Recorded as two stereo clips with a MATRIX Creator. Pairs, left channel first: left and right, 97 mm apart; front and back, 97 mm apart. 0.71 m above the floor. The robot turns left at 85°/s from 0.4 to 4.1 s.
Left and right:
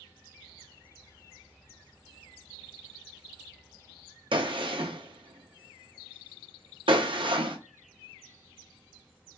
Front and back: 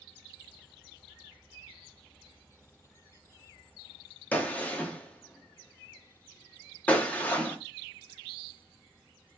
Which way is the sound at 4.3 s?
75° right.